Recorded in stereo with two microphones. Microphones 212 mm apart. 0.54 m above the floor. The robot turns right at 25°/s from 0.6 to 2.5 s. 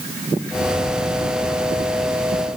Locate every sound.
Only background noise.